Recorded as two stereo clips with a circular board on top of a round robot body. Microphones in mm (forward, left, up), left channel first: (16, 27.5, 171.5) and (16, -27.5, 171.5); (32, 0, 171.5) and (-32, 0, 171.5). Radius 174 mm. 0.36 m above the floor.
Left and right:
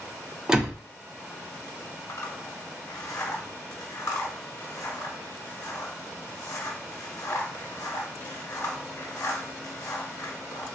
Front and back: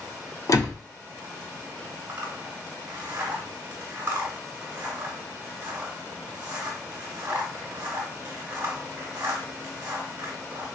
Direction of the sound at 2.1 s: 120° left.